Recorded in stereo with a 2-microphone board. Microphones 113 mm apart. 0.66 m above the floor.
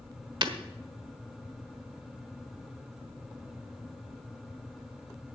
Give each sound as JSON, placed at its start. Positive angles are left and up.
{"t": 0.4, "sound": "breaking glass", "side_deg": -50, "distance_m": 1.2}